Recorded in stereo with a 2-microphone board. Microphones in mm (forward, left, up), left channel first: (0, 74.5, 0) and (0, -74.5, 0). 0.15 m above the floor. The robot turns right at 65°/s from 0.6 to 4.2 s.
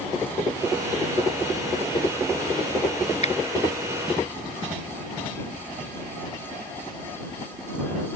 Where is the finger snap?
45° left (ahead or behind); by 3.4 s 50° left (ahead or behind).